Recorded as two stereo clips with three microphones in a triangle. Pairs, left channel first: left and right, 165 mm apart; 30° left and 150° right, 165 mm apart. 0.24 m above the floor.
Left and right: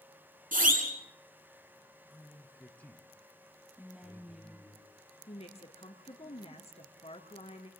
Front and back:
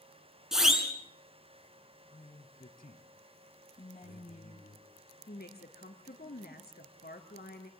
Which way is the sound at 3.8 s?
5° right.